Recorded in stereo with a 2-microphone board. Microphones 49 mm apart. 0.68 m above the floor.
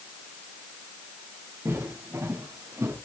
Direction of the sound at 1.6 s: 65° right (ahead or behind).